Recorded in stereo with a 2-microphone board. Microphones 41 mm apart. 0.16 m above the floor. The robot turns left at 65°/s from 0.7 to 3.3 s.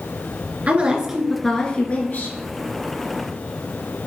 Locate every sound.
0.7 s a woman speaking: 140° right, 2 m; by 2.3 s 115° left, 2 m